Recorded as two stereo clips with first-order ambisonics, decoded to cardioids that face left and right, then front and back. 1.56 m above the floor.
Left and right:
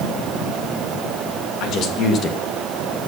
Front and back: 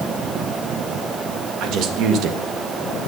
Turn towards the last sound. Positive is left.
turn(degrees=175)